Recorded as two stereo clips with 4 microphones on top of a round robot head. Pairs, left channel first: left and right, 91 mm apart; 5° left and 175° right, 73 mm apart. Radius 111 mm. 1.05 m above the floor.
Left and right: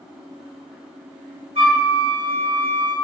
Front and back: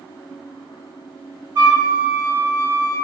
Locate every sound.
1.6 s a flute: 120° right, 2 m